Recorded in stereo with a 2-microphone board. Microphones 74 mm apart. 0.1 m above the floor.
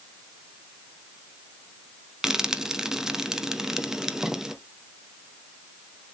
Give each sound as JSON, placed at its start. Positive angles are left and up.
{"t": 2.2, "sound": "frying", "side_deg": -5, "distance_m": 1.0}